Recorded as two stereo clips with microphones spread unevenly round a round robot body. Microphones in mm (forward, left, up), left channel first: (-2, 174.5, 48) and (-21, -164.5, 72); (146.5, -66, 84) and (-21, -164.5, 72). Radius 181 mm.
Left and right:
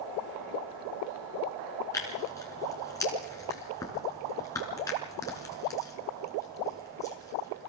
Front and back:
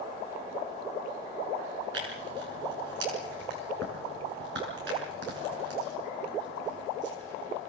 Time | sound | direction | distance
1.9 | tearing paper | 170° left | 5 m